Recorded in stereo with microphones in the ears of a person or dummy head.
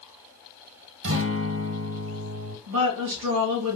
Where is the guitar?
60° right (ahead or behind), 1.0 m.